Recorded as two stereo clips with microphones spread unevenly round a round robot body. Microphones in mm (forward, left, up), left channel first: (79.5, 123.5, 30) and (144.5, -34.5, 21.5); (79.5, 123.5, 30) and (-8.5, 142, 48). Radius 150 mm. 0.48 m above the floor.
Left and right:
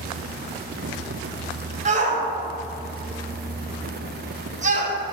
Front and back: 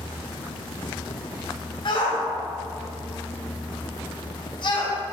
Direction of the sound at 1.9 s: 30° right.